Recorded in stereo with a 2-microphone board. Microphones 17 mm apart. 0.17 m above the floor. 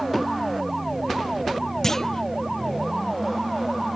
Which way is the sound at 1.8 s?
25° left (ahead or behind).